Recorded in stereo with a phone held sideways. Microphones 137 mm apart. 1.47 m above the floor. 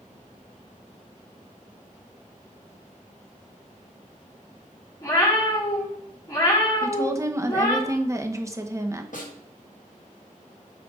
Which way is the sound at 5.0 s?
25° left (ahead or behind).